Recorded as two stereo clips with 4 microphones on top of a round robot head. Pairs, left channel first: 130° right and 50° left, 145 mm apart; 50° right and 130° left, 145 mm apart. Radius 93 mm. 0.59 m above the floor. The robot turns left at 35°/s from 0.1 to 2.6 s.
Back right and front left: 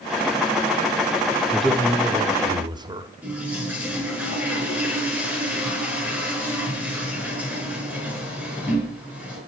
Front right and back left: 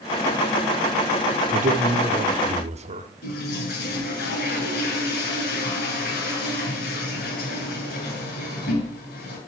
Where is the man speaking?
140° left, 1.4 m; by 3.1 s 105° left, 1.4 m.